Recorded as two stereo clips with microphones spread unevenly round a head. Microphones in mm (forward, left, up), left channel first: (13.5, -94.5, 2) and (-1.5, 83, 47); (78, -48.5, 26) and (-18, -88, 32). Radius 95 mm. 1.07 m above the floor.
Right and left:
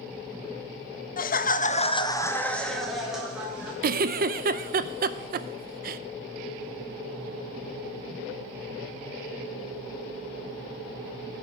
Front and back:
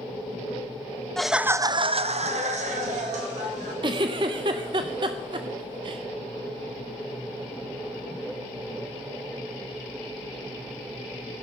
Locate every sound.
1.2 s laughter: 60° right, 0.8 m; by 3.7 s straight behind, 2 m
3.8 s a giggle: 145° left, 0.5 m